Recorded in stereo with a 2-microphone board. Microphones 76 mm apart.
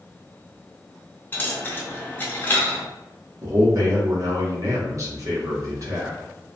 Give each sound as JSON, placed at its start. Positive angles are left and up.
{"t": 1.3, "sound": "a dropped coin", "side_deg": 25, "distance_m": 0.5}
{"t": 3.4, "sound": "a man speaking", "side_deg": -45, "distance_m": 0.8}